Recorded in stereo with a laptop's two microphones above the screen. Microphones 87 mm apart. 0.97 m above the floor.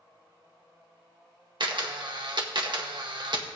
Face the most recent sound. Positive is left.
turn(degrees=-65)  # may be behind; listen again after turning